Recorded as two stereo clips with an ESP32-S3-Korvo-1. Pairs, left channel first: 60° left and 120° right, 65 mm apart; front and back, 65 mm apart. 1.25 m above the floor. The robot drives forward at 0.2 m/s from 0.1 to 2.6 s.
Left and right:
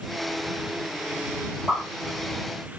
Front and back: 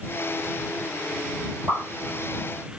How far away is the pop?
About 2.0 m.